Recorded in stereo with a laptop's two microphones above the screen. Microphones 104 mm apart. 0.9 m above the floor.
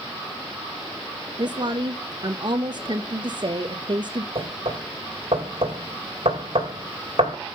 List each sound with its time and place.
1.4 s a woman speaking: 45° right (ahead or behind), 0.8 m
4.3 s knocking: 65° right (ahead or behind), 3 m